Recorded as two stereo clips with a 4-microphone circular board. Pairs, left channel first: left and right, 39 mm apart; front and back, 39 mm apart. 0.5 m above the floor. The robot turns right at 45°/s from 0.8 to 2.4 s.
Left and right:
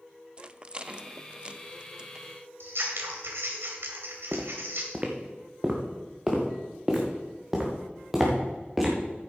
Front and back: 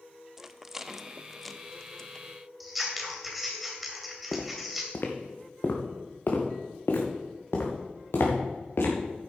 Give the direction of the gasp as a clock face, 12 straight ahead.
No gasp in this recording.